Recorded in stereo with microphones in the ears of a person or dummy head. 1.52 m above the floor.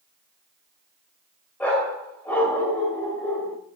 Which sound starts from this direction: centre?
A dog barking, at 1.6 s.